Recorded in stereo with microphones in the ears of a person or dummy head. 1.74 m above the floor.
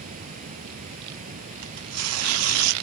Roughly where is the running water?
Right.